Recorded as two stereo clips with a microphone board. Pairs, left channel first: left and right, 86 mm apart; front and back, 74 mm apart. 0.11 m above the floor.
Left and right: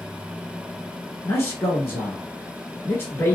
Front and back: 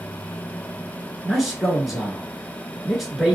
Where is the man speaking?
95° left, 1.2 m.